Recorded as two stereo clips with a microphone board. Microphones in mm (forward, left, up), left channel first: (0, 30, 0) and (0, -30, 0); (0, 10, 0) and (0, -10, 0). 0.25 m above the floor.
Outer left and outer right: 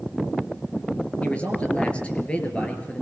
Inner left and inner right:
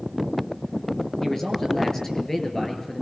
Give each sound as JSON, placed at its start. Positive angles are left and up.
{"t": 1.2, "sound": "a man speaking", "side_deg": 20, "distance_m": 4.5}